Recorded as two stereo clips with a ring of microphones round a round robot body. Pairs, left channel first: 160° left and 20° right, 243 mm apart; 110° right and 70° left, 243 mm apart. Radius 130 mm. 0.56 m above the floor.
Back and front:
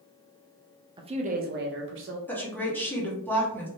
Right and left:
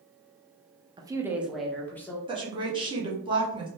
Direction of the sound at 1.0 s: 20° left.